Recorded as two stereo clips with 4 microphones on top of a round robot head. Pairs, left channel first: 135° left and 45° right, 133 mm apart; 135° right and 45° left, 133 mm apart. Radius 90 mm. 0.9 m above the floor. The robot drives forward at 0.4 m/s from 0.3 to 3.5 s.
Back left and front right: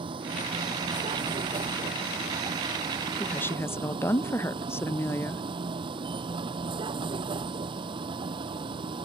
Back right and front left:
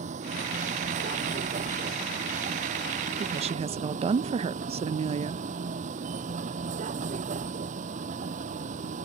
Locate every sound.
0.0 s a vehicle: 10° left
3.2 s a woman speaking: 55° left; by 5.4 s 70° left